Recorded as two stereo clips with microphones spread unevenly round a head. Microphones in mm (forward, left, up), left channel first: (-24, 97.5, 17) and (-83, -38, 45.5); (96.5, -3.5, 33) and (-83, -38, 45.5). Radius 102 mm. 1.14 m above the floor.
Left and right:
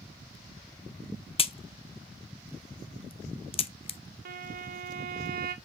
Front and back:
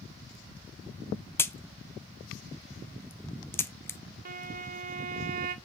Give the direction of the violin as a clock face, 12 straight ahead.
4 o'clock.